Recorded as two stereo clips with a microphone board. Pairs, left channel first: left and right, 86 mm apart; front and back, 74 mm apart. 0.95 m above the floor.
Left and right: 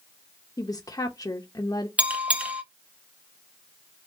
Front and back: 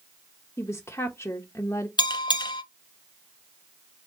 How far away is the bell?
About 0.6 m.